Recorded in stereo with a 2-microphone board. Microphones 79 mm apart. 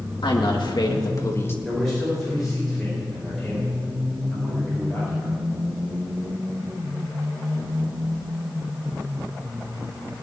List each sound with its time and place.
0.2 s a woman speaking: 85° left, 2.0 m; by 1.6 s 30° left (ahead or behind), 1.7 m
1.6 s a man speaking: 5° left (ahead or behind), 5 m